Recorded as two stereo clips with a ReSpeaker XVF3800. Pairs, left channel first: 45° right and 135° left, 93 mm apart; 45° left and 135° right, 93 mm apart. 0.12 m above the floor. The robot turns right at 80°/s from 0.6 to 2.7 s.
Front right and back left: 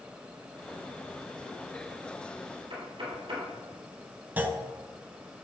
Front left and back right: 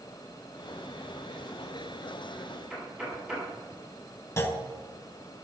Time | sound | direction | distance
2.7 | knocking | 150° left | 3.5 m
4.4 | a clunk | 80° left | 0.9 m